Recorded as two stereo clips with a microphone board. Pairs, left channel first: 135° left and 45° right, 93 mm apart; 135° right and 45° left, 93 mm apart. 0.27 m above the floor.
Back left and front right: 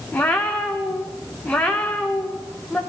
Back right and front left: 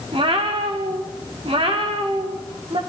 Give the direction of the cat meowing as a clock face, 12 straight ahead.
10 o'clock.